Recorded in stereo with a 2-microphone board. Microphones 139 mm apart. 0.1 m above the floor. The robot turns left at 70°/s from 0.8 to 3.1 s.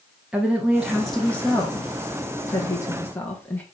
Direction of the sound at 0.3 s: 5° right (ahead or behind).